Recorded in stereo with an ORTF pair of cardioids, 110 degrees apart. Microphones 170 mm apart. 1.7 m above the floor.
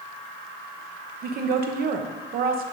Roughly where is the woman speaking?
Ahead right.